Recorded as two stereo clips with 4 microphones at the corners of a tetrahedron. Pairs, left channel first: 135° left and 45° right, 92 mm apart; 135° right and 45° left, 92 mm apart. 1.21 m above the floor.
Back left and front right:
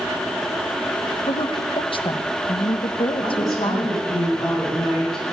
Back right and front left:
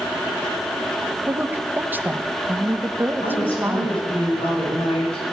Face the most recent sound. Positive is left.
turn(degrees=-140)